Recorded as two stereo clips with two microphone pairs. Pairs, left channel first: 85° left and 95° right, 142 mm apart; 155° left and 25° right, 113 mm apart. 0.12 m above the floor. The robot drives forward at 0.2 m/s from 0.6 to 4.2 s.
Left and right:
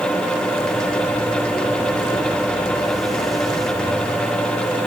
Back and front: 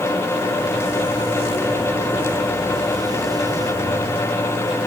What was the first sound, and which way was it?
Only background noise.